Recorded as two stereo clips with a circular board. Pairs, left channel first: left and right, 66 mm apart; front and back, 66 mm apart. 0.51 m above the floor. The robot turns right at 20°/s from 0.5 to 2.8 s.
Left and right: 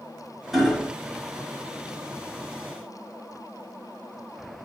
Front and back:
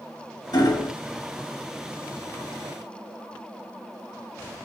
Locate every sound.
0.5 s hammering: 5° right, 1.4 m; by 0.9 s 5° left, 1.4 m